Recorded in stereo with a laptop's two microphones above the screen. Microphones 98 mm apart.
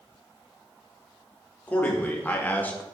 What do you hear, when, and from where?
1.7 s a man speaking: 20° left (ahead or behind), 1.6 m; by 2.8 s 15° left (ahead or behind), 0.8 m